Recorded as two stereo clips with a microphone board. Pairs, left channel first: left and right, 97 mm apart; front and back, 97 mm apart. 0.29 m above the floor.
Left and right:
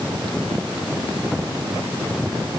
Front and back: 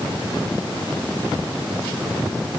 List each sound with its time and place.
Only background noise.